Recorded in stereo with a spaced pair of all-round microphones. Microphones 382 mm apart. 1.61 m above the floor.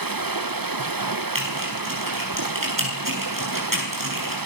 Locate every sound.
0.0 s running water: 60° right (ahead or behind), 1.1 m
1.4 s typing on a keyboard: 55° right (ahead or behind), 9.5 m